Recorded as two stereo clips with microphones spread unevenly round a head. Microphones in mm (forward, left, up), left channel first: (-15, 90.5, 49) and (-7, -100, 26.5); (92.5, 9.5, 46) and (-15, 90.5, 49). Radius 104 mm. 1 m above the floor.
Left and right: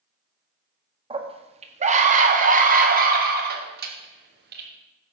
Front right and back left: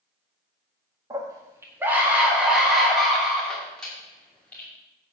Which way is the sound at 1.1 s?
150° right.